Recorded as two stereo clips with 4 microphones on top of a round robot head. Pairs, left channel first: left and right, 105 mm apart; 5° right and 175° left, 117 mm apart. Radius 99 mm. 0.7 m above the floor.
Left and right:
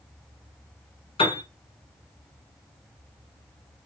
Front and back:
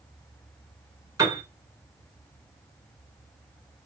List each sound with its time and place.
1.2 s a piano: 120° left, 3 m